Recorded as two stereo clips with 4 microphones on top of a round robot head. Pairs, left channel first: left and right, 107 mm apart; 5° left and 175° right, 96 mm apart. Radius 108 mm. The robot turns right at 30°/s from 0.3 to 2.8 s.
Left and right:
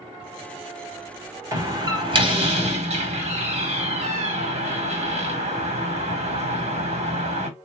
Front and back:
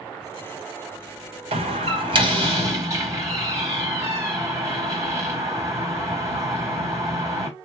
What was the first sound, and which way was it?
A door slam, 155° right.